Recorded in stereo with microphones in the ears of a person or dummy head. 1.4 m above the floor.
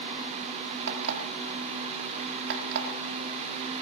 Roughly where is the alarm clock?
Right.